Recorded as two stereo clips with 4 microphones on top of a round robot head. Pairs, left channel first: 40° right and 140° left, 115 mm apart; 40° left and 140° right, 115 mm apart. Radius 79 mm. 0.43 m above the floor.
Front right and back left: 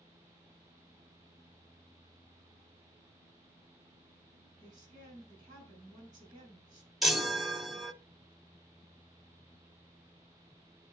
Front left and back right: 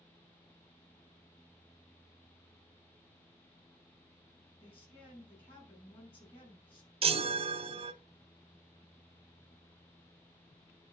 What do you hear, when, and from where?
4.6 s a woman speaking: 85° left, 5.5 m
7.0 s a chime: 135° right, 0.9 m